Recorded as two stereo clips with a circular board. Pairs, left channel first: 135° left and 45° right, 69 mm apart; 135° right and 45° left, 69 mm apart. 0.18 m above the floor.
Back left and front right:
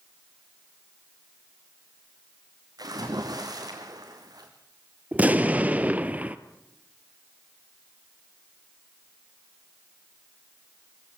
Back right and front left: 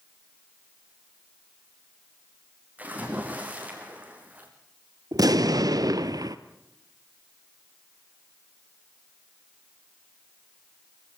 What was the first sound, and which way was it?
A splash, 20° right.